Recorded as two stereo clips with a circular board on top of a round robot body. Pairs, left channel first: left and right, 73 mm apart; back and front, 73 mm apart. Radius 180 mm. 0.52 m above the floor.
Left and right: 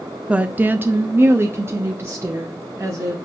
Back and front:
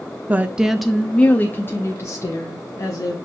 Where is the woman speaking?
35° right, 0.7 m; by 3.1 s 145° right, 1.5 m.